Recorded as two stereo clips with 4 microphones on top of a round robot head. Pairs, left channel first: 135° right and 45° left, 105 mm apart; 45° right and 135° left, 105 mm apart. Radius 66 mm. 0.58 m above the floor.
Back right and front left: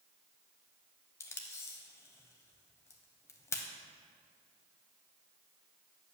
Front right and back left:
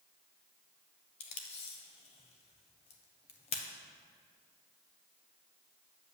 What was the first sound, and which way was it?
Tape being pulled, 75° right.